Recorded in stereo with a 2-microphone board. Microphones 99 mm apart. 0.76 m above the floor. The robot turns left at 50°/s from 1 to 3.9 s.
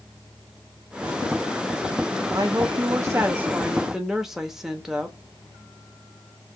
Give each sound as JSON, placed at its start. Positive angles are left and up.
{"t": 2.3, "sound": "a woman speaking", "azimuth_deg": -95, "distance_m": 1.0}